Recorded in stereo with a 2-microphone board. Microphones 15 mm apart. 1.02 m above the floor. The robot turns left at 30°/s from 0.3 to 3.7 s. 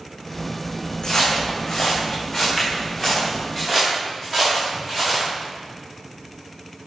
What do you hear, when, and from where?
1.0 s footsteps: 45° left (ahead or behind), 3.5 m; by 5.3 s 5° left (ahead or behind), 8 m